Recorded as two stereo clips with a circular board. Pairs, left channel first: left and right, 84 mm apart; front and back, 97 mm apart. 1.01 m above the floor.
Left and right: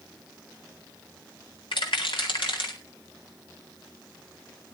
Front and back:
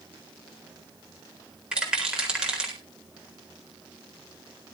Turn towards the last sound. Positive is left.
turn(degrees=100)